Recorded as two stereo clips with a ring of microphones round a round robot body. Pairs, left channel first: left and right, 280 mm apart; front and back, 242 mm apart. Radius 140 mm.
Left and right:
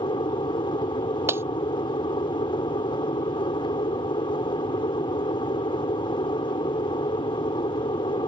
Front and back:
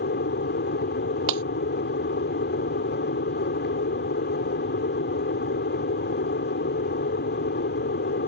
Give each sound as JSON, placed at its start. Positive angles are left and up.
{"t": 0.0, "sound": "an aircraft", "azimuth_deg": 20}
{"t": 1.3, "sound": "breaking glass", "azimuth_deg": -170}